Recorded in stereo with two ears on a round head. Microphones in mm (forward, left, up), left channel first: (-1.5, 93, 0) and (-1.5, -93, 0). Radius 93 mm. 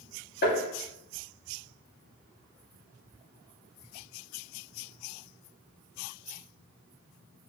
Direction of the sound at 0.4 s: 55° left (ahead or behind).